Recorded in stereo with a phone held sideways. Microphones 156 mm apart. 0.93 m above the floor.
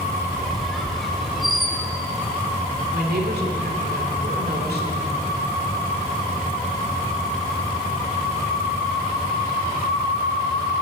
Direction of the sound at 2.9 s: 75° right (ahead or behind).